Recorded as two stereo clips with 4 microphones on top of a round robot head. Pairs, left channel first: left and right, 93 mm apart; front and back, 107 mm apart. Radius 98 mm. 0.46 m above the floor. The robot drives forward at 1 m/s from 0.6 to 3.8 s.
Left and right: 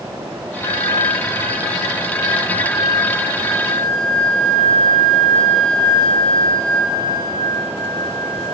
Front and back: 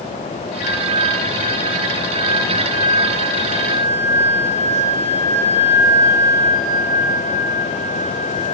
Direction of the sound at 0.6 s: 120° left.